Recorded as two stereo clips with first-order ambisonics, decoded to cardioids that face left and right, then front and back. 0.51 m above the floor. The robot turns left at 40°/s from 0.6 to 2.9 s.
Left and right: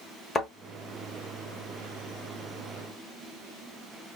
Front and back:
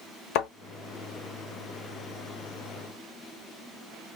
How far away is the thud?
About 1.0 m.